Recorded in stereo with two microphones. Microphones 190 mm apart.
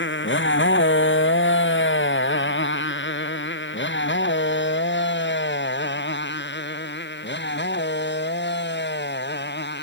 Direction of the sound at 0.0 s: 80° left.